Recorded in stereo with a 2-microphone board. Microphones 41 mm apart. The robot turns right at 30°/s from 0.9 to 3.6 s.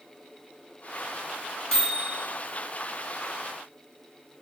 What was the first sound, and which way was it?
A microwave, 20° left (ahead or behind).